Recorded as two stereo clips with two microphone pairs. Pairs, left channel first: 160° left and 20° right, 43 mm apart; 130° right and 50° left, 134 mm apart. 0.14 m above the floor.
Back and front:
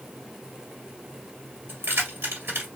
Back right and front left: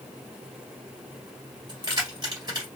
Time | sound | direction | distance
1.7 | keys jangling | straight ahead | 1.8 m